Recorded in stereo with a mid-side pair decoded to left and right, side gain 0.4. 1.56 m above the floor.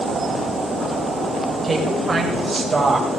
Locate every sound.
1.6 s a woman speaking: 30° right, 6.5 m